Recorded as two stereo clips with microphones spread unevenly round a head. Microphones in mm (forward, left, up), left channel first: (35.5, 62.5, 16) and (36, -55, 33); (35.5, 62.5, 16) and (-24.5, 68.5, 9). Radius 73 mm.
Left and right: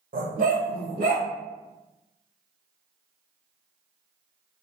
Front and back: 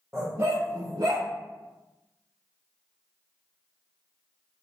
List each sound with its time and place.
0.1 s a dog barking: 100° right, 1.8 m; by 1.3 s 125° right, 2 m